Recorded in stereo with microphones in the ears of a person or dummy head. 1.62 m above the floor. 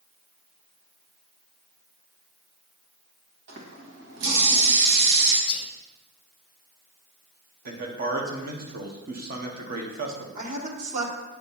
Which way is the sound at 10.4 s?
50° right (ahead or behind).